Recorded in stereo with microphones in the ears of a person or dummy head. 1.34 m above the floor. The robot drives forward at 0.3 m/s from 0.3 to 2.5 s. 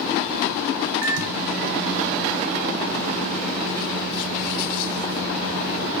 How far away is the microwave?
About 0.5 m.